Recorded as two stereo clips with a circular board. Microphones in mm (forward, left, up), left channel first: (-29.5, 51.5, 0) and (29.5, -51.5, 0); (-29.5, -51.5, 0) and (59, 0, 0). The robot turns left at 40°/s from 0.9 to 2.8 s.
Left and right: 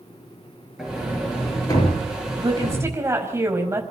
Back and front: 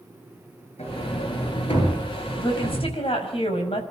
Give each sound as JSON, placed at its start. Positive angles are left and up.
{"t": 0.8, "sound": "a sliding door", "azimuth_deg": -145, "distance_m": 6.0}
{"t": 2.4, "sound": "a woman speaking", "azimuth_deg": -110, "distance_m": 5.0}